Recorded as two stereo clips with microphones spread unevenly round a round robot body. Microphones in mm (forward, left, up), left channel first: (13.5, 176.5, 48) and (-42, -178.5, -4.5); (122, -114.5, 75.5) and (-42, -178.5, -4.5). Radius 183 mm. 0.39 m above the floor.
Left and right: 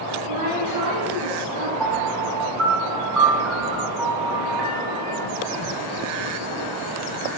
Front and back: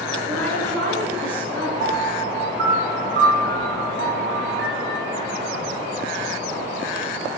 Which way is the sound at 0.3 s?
55° right.